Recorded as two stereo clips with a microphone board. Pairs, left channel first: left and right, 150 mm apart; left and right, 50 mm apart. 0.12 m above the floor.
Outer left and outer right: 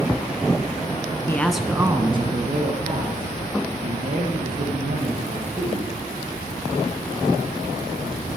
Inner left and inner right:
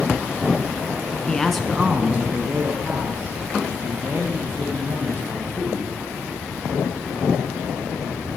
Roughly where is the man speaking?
Centre.